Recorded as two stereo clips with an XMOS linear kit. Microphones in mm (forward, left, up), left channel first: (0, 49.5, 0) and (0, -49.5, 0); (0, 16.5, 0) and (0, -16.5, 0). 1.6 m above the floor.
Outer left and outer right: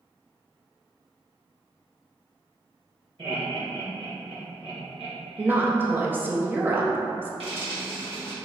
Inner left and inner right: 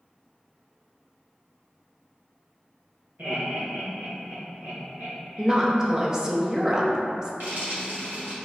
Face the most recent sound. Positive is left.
turn(degrees=-75)  # may be behind; listen again after turning